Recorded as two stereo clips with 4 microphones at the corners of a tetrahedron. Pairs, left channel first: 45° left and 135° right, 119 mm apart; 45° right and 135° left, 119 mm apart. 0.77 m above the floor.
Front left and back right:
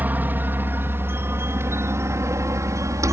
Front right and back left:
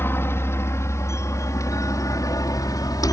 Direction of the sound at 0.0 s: 85° right.